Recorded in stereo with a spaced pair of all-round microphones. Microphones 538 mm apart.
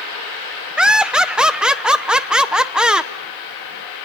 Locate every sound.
0.8 s laughter: centre (ahead or behind), 0.9 m